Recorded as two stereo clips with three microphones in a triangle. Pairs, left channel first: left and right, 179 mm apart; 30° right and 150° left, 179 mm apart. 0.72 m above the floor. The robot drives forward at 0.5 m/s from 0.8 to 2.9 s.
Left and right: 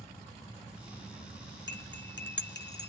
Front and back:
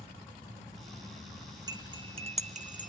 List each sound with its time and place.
1.7 s cutlery clinking: 80° left, 1.3 m; by 2.9 s 110° left, 1.4 m